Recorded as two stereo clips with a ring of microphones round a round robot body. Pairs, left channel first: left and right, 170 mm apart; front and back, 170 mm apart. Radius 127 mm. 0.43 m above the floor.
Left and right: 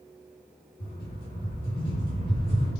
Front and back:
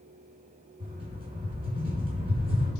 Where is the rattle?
120° left, 1.7 m.